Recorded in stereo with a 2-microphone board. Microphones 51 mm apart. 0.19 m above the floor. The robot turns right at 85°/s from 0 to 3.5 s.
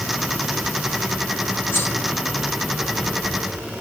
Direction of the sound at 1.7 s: 50° left (ahead or behind).